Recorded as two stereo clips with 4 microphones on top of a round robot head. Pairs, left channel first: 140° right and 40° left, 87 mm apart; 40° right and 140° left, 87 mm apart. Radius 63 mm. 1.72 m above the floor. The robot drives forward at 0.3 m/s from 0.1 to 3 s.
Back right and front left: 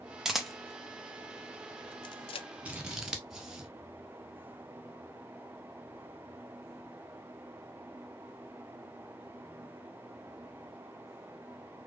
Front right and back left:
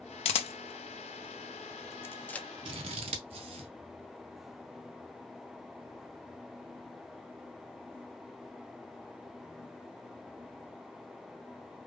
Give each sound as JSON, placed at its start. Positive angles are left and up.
{"t": 0.2, "sound": "a camera shutter", "azimuth_deg": -45, "distance_m": 0.7}
{"t": 2.6, "sound": "scissors", "azimuth_deg": 110, "distance_m": 0.8}